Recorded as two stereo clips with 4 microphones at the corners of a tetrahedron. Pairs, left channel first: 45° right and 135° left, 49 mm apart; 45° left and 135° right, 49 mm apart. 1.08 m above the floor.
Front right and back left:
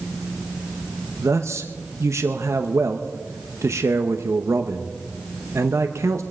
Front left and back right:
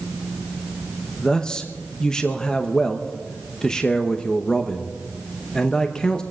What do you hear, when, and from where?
1.2 s a man speaking: 120° left, 0.8 m